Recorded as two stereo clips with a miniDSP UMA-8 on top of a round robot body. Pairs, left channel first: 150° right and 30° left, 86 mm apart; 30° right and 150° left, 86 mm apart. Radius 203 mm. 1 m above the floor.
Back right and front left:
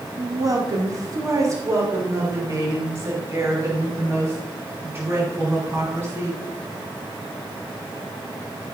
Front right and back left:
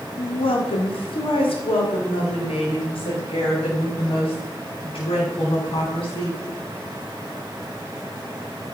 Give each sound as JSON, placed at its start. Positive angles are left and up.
{"t": 0.2, "sound": "a woman speaking", "azimuth_deg": -20, "distance_m": 2.5}